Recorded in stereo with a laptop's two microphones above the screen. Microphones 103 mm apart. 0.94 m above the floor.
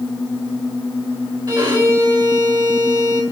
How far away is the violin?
About 4.5 m.